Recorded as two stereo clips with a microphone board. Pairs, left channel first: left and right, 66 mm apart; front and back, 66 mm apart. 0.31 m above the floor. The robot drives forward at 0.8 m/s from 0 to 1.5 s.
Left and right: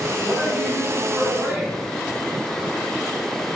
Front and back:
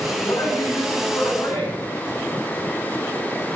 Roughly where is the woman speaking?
Ahead.